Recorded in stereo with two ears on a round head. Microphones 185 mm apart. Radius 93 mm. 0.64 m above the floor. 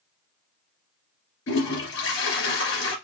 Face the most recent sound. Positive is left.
turn(degrees=60)  # may be behind; listen again after turning